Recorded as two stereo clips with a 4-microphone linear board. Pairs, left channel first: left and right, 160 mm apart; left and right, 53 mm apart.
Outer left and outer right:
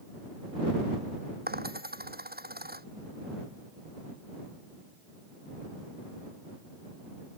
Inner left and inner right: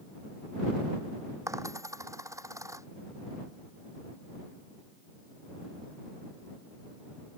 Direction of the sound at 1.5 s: 80° right.